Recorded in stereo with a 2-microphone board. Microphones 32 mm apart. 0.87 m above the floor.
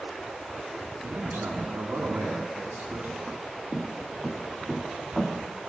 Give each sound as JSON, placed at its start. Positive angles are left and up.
{"t": 1.0, "sound": "a man speaking", "side_deg": -85, "distance_m": 8.5}
{"t": 3.3, "sound": "footsteps", "side_deg": -15, "distance_m": 4.0}